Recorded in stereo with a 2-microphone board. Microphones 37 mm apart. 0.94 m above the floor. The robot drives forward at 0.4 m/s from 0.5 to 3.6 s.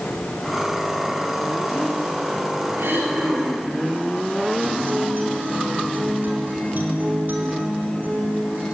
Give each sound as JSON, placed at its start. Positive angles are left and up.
{"t": 2.8, "sound": "throat clearing", "side_deg": -75, "distance_m": 4.5}
{"t": 4.6, "sound": "a guitar", "side_deg": -60, "distance_m": 3.0}